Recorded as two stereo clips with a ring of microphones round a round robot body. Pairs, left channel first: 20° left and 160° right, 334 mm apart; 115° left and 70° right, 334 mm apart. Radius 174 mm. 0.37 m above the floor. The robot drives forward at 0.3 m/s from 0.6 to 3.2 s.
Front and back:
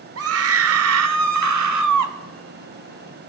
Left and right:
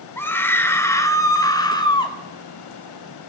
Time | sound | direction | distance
0.2 | a scream | 165° right | 1.0 m